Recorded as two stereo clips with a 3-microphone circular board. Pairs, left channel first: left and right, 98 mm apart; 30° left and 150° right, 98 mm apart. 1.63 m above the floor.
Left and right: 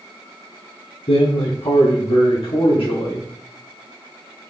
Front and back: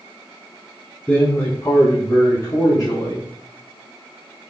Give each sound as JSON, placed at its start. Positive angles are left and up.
{"t": 1.1, "sound": "a man speaking", "azimuth_deg": 110, "distance_m": 0.8}